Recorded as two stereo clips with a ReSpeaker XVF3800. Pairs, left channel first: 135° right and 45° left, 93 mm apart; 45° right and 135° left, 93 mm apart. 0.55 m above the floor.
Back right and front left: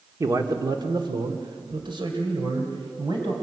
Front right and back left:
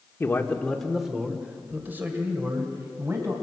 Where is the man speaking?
10° left, 1.5 m; by 3.3 s 75° left, 4 m.